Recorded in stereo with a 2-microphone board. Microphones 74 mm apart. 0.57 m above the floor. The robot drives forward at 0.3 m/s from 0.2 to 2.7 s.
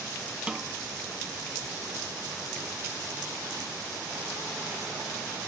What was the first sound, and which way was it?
A snare drum, 15° right (ahead or behind).